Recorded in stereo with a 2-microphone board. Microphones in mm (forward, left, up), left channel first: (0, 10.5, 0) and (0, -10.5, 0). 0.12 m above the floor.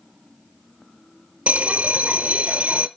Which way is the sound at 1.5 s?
65° right (ahead or behind).